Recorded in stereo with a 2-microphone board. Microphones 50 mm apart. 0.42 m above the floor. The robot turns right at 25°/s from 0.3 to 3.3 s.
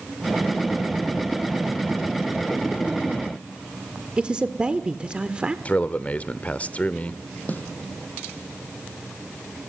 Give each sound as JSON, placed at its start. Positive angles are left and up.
{"t": 4.2, "sound": "a man speaking", "side_deg": -20, "distance_m": 1.1}
{"t": 5.7, "sound": "a man speaking", "side_deg": 30, "distance_m": 0.9}
{"t": 7.5, "sound": "a snare drum", "side_deg": 35, "distance_m": 3.0}